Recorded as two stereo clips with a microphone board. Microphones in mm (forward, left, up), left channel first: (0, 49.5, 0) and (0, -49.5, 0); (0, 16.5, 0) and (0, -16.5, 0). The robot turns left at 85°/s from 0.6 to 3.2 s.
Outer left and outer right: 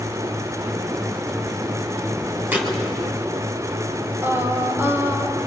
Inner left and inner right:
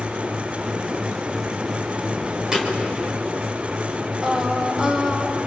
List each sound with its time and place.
2.5 s a thud: 25° right (ahead or behind), 4 m; by 2.8 s centre (ahead or behind), 4 m
4.2 s singing: 20° right (ahead or behind), 1.9 m